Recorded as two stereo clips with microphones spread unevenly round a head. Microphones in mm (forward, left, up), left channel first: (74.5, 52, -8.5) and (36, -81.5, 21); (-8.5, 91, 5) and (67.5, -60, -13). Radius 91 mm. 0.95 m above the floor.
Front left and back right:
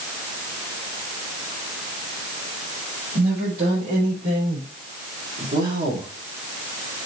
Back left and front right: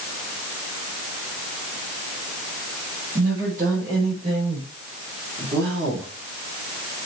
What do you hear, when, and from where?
3.1 s a woman speaking: 115° right, 4.5 m; by 6.1 s 120° right, 2 m